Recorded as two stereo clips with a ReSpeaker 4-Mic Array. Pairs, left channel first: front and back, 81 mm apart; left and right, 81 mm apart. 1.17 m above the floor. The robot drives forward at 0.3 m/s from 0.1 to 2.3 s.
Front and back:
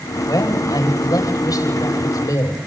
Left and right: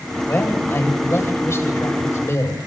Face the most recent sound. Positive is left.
turn(degrees=40)